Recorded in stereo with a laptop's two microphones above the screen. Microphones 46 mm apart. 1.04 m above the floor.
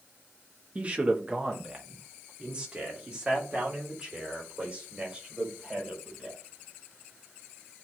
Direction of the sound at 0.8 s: 30° right (ahead or behind).